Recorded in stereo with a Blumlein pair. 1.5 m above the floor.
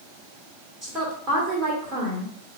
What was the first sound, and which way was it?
A woman speaking, 25° right.